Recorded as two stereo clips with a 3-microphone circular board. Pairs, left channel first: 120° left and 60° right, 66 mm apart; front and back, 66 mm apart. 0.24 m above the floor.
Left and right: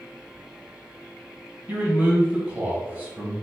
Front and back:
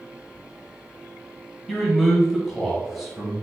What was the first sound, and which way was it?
A man speaking, 90° right.